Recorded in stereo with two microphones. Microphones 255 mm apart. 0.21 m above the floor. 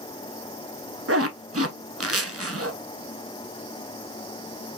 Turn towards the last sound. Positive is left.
turn(degrees=-60)  # may be behind; listen again after turning